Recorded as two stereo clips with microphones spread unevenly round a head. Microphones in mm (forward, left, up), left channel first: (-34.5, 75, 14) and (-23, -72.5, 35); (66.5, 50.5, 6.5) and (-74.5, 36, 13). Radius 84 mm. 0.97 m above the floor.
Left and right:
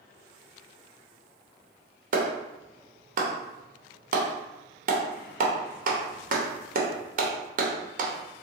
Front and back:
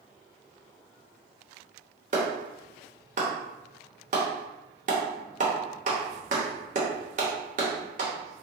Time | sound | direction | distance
2.1 | a clap | 125° right | 0.7 m